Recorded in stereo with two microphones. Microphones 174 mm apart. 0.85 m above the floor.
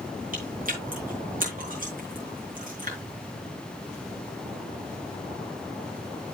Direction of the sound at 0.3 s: 55° right (ahead or behind).